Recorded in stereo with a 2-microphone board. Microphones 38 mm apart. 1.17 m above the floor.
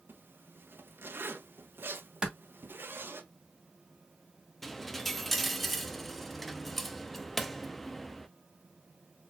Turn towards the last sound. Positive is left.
turn(degrees=5)  # may be behind; listen again after turning